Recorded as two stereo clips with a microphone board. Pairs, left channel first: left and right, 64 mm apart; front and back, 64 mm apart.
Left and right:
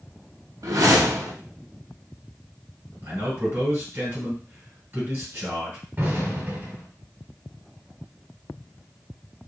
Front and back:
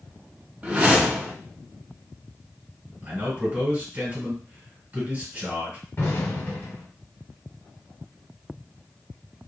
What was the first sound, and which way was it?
A whoosh, 115° right.